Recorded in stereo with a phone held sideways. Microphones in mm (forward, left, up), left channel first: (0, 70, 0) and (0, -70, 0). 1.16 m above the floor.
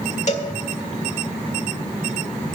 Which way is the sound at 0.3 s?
55° left (ahead or behind).